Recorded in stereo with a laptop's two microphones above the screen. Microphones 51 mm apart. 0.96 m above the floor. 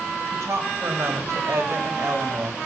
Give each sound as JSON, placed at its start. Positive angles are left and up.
{"t": 0.3, "sound": "a woman speaking", "side_deg": -70, "distance_m": 4.5}